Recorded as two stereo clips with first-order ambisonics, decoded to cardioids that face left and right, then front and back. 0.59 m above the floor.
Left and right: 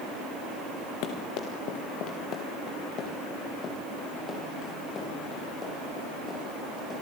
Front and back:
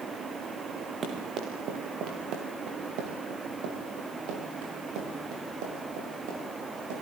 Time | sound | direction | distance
1.0 | running footsteps | 115° left | 3.5 m